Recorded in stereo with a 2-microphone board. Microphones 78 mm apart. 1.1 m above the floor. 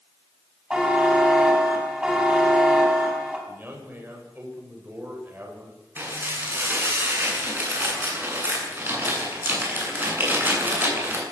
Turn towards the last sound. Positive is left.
turn(degrees=-25)  # may be behind; listen again after turning